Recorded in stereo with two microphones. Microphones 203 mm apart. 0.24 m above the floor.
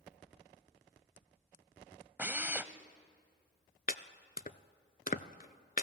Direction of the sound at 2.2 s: 10° right (ahead or behind).